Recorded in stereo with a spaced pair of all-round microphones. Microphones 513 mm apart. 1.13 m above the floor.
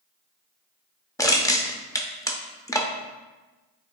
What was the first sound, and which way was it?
Crushing, 5° left (ahead or behind).